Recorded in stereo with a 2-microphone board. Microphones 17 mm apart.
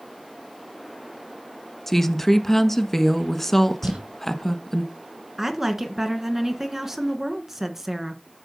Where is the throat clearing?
No throat clearing in this recording.